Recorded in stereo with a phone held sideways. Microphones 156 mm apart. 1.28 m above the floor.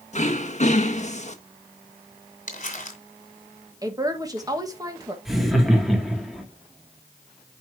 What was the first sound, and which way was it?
Throat clearing, 45° left (ahead or behind).